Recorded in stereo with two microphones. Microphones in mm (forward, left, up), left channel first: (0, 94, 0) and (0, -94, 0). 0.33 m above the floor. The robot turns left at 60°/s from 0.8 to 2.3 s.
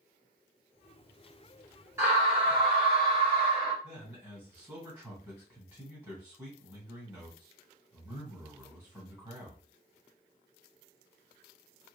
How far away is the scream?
About 2.5 m.